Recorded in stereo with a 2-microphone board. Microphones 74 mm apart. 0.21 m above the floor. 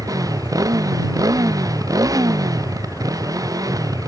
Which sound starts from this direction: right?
A motorcycle, at 0.0 s.